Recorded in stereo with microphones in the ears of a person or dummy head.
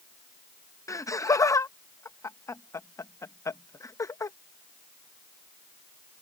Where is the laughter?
15° left (ahead or behind).